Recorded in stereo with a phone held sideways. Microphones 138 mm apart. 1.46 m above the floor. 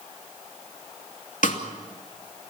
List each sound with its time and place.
1.4 s a snare drum: 70° left (ahead or behind), 2.5 m